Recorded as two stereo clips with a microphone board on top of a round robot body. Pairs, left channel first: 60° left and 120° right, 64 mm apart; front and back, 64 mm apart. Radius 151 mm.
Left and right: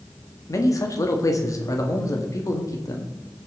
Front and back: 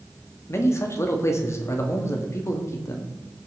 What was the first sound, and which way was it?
A man speaking, 40° left.